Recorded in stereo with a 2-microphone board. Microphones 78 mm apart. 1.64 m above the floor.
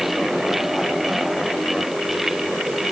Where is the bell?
No bell in this recording.